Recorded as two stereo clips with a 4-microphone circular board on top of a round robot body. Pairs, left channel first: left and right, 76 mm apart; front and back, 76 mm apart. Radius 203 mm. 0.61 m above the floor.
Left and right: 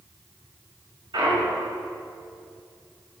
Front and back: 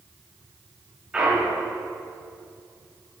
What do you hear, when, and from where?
1.1 s a clunk: 100° right, 5.5 m